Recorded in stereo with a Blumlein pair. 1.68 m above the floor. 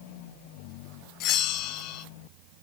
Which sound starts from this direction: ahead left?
A bell, at 1.2 s.